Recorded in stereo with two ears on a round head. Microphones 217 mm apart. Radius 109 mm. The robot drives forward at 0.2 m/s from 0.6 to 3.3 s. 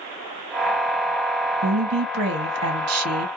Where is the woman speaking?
60° right (ahead or behind), 1.1 m; by 3.3 s 65° right (ahead or behind), 1.1 m.